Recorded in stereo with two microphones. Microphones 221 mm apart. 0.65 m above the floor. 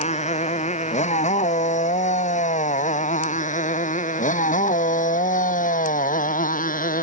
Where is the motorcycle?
30° left (ahead or behind); by 7.0 s 40° left (ahead or behind).